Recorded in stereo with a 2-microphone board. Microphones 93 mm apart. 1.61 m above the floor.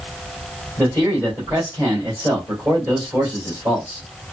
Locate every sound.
0.8 s a man speaking: 30° right (ahead or behind), 2.5 m